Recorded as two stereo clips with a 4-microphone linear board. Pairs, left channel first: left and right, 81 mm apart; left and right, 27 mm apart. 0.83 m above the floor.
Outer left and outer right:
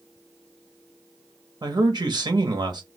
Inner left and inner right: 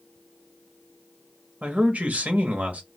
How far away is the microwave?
No microwave in this recording.